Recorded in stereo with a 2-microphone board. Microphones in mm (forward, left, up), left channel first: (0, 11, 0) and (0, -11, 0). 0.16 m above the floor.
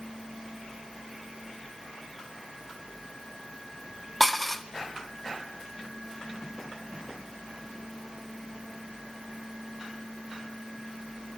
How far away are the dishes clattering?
About 0.8 m.